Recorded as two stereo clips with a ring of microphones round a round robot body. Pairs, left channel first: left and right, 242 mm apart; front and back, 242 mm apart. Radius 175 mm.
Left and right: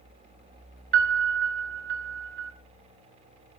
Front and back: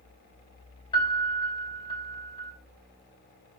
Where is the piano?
70° right, 2 m.